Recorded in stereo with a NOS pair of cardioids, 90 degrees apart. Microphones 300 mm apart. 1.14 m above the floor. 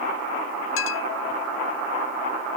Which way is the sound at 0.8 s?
45° left.